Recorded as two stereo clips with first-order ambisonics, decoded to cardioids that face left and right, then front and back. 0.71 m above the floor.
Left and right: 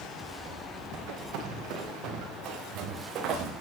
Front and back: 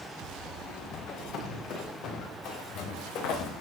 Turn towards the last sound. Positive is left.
turn(degrees=-40)